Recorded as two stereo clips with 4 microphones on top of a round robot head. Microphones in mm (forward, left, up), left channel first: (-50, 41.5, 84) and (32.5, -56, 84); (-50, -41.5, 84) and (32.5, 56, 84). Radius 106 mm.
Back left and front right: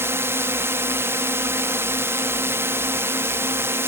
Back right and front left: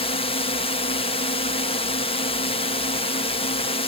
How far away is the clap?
I don't hear a clap.